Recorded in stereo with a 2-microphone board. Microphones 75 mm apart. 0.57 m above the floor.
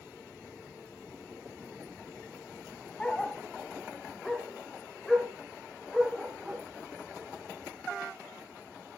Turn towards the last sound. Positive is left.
turn(degrees=0)  # may be behind; listen again after turning